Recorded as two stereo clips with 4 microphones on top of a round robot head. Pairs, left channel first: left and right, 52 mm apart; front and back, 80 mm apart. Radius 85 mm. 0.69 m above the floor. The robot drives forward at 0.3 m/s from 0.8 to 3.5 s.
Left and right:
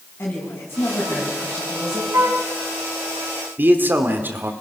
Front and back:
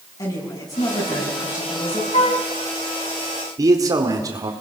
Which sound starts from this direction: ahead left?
A woman speaking, at 0.2 s.